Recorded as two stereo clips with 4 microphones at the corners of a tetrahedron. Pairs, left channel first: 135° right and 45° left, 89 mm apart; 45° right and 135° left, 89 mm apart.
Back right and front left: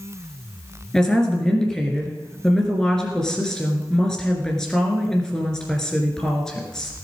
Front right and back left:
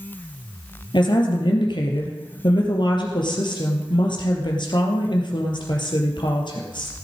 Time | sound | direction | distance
0.9 | a woman speaking | 50° right | 3 m